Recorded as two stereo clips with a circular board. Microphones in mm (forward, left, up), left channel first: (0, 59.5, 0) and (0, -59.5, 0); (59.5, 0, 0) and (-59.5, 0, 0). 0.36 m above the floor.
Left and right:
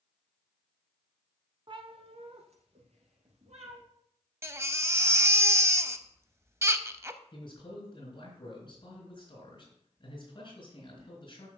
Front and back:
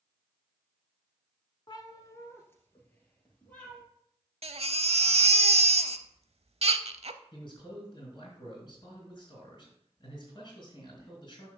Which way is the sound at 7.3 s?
45° left.